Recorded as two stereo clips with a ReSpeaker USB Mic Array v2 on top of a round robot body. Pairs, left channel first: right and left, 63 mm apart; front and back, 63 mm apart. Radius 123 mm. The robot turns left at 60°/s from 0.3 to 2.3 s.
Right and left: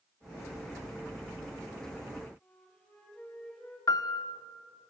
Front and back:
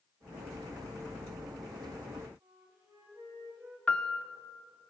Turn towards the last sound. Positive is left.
turn(degrees=-75)